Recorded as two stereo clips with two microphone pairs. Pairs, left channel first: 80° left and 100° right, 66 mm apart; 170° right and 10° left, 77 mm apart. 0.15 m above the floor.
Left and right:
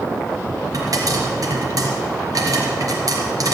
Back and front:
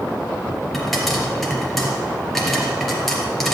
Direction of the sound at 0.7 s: 85° right.